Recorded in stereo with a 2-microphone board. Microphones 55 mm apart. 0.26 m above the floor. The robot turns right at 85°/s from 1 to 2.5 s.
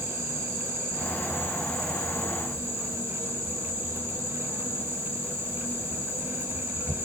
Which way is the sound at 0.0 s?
15° left.